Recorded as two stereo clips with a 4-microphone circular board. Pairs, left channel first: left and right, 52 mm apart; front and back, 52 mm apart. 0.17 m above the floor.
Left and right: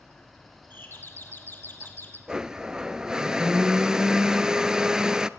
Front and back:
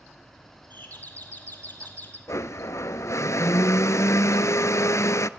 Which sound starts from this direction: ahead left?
A doorbell, at 0.7 s.